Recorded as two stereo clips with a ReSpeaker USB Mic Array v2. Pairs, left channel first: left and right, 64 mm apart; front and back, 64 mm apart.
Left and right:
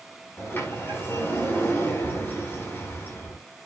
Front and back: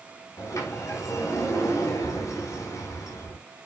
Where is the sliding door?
35° left, 5 m.